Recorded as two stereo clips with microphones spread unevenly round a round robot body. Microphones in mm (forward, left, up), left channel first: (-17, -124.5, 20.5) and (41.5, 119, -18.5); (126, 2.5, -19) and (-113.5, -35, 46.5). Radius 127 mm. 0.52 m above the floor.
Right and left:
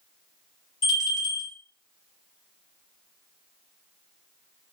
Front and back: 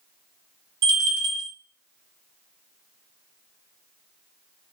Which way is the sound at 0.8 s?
165° right.